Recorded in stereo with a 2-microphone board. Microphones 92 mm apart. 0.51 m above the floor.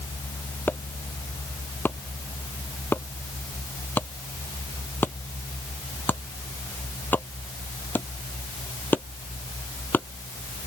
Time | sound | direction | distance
0.7 | chopping | 20° left (ahead or behind) | ?